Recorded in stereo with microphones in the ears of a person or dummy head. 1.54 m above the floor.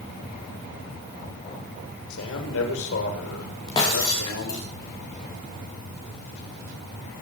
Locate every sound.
2.1 s a man speaking: 80° left, 6.5 m
3.7 s breaking glass: 25° left (ahead or behind), 8 m